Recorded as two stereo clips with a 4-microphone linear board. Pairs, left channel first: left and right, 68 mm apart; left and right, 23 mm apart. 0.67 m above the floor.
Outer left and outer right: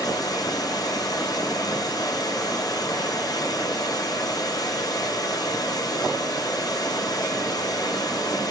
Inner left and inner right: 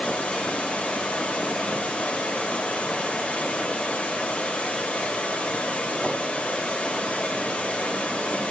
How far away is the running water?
About 4.5 m.